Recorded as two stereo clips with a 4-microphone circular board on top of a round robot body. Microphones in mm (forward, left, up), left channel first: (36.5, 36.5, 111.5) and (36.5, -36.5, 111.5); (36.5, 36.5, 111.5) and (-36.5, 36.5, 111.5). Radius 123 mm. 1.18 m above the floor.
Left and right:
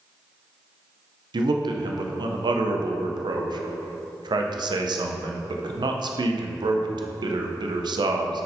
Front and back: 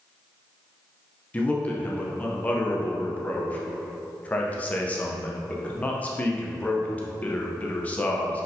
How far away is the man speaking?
About 0.7 m.